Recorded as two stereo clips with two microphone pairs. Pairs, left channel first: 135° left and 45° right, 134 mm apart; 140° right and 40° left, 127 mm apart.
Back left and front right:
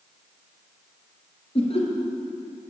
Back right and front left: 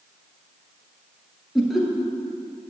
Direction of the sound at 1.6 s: 130° left.